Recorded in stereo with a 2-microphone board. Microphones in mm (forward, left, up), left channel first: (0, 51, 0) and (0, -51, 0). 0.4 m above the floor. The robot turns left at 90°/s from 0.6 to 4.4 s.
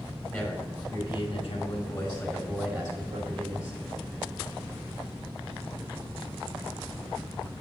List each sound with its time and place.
0.3 s a man speaking: 155° left, 4 m; by 3.8 s 130° right, 4 m